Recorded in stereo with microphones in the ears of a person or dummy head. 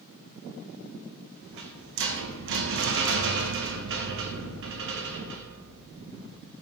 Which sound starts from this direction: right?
A rattle, at 1.4 s.